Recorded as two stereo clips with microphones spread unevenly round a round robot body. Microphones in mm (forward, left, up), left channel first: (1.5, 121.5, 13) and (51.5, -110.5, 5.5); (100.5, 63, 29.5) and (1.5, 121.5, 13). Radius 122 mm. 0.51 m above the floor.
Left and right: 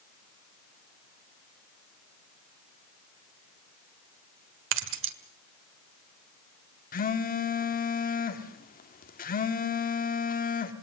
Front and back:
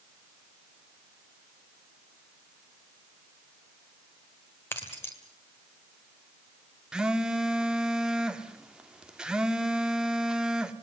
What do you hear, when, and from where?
4.7 s keys jangling: 110° right, 1.5 m
6.9 s a phone buzzing: 85° left, 1.4 m